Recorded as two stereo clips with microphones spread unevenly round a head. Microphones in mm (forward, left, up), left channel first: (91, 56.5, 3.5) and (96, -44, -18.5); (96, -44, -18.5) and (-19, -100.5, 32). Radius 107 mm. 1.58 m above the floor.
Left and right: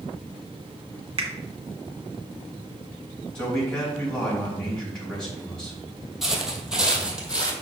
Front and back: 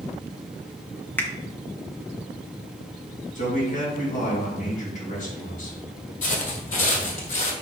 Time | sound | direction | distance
1.2 | a finger snap | 65° right | 1.2 m
3.4 | a man speaking | 10° left | 3.5 m
6.2 | footsteps | 15° left | 1.9 m